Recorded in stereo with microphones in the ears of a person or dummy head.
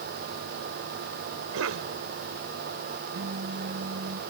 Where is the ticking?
No ticking in this recording.